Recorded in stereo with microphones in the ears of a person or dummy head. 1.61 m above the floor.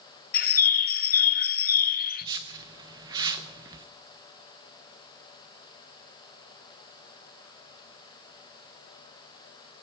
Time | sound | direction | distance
0.3 | a bird | 50° left (ahead or behind) | 0.6 m
2.2 | a whoosh | 20° right (ahead or behind) | 0.5 m